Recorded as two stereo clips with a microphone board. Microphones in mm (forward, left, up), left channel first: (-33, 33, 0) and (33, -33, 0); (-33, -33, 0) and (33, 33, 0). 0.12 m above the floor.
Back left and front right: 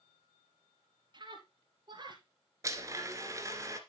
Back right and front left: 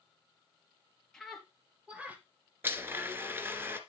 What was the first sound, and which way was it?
A scream, 50° right.